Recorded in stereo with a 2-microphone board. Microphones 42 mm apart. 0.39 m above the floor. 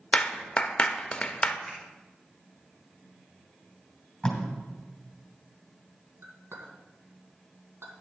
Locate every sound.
0.1 s a clap: 25° left (ahead or behind), 0.6 m
1.7 s a finger snap: 5° right (ahead or behind), 4 m
4.2 s tape being pulled: 15° left (ahead or behind), 2.5 m
6.2 s a clink: 75° right (ahead or behind), 2 m